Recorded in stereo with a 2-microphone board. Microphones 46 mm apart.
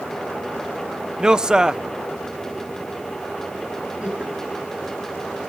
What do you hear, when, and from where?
1.2 s a man speaking: 15° right (ahead or behind), 0.5 m
4.0 s laughter: 30° right (ahead or behind), 10 m